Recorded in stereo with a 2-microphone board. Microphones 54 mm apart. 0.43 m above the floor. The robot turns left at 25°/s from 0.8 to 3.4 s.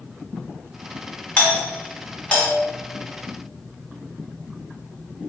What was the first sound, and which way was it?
A doorbell, 25° left (ahead or behind).